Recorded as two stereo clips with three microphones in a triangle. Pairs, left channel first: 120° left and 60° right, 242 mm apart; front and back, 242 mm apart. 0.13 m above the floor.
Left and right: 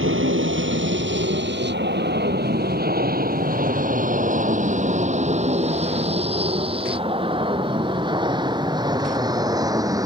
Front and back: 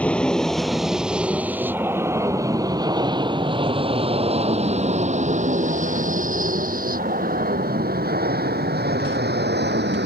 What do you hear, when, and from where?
0.0 s an aircraft: 85° right; by 10.1 s 135° right